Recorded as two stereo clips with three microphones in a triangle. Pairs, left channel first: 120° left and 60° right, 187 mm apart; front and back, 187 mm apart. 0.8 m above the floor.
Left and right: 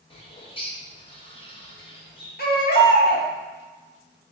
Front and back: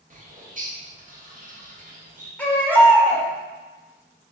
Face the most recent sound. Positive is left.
turn(degrees=80)